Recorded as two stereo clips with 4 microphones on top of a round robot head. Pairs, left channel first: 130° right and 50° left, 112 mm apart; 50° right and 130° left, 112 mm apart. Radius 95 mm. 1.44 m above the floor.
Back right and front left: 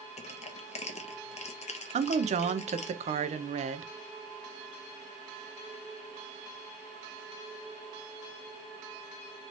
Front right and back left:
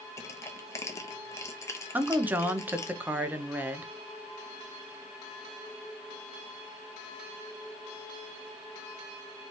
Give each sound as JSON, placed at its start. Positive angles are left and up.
{"t": 0.2, "sound": "crushing", "azimuth_deg": -115, "distance_m": 0.9}
{"t": 1.9, "sound": "a woman speaking", "azimuth_deg": 55, "distance_m": 0.7}